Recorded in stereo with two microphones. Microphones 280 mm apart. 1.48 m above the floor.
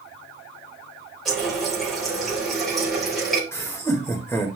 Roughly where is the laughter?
Centre.